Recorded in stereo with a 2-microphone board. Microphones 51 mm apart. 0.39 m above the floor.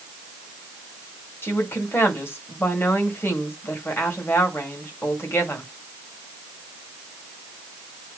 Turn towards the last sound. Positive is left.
turn(degrees=50)  # may be behind; listen again after turning